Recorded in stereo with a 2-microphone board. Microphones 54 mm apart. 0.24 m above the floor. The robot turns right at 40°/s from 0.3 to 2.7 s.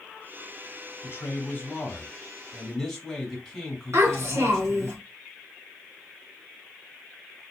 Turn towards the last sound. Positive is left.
turn(degrees=-60)  # may be behind; listen again after turning